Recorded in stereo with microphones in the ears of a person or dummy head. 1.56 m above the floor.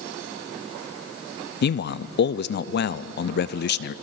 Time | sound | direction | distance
1.6 | a man speaking | 50° left (ahead or behind) | 0.6 m